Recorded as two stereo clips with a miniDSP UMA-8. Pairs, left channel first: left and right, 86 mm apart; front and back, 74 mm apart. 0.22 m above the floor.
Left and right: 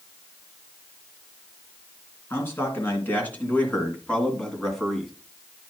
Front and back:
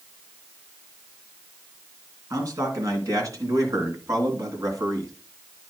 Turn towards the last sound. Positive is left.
turn(degrees=180)